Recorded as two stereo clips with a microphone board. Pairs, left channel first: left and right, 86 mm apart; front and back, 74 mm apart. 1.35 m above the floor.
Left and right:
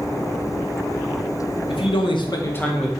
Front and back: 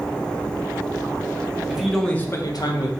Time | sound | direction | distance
1.7 | a man speaking | 100° left | 0.9 m